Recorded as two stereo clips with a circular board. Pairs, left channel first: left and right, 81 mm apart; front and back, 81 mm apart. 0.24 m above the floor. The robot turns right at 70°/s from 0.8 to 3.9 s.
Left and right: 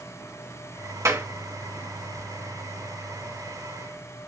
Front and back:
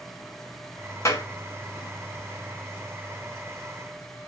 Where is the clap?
45° right, 2.5 m; by 1.3 s 30° right, 2.5 m.